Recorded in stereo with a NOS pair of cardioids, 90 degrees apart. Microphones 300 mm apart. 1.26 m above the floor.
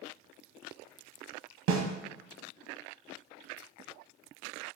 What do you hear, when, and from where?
1.7 s a snare drum: 70° right, 1.0 m